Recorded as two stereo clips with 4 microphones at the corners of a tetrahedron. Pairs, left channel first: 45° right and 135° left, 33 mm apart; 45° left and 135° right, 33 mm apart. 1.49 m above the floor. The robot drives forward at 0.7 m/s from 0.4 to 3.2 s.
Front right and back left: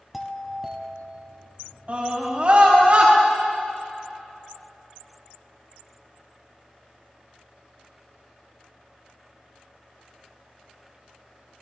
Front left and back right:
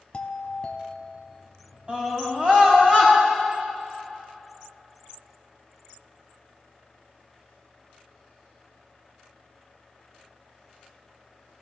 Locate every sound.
0.1 s a doorbell: 55° left, 0.7 m; by 1.6 s 150° left, 0.9 m
1.9 s a scream: 175° left, 3.5 m